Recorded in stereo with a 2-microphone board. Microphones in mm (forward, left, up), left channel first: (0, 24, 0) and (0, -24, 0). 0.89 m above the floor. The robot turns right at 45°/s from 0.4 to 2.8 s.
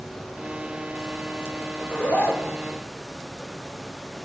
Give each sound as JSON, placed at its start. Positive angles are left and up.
{"t": 1.8, "sound": "a zipper", "azimuth_deg": 30, "distance_m": 0.8}